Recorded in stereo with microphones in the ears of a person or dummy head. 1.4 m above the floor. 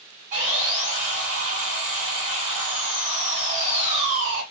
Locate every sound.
0.3 s sawing: 40° right (ahead or behind), 1.8 m